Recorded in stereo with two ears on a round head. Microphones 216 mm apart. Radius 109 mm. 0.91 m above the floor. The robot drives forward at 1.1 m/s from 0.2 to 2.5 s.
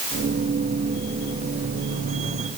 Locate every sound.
Only background noise.